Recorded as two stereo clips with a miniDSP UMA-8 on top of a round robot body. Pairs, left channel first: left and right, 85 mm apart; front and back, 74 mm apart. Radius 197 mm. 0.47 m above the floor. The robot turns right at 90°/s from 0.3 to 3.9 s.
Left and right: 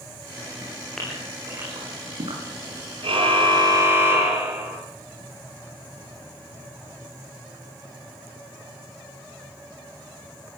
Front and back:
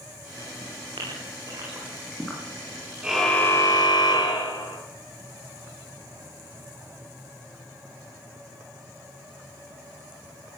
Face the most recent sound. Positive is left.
turn(degrees=-25)